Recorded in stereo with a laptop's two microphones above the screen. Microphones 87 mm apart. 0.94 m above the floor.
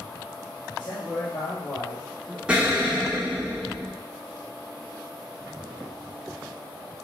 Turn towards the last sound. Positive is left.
turn(degrees=-10)  # may be behind; listen again after turning